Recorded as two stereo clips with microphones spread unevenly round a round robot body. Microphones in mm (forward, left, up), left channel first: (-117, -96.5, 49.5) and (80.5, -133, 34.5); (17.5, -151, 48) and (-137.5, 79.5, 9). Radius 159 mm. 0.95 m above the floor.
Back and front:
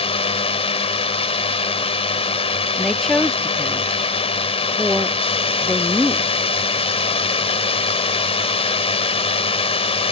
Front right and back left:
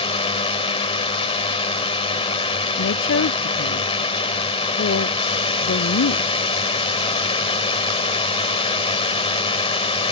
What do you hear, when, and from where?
0.0 s a drone: 130° right
2.8 s a woman speaking: 100° right